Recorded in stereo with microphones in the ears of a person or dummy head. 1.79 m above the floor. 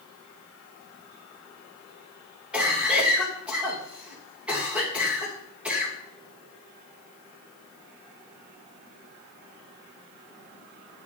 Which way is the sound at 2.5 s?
5° right (ahead or behind).